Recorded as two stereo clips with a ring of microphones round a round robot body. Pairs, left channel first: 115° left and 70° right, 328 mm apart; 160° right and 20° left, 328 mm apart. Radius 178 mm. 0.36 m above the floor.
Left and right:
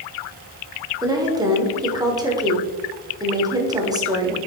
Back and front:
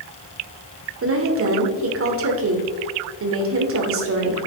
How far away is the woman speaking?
About 1.3 m.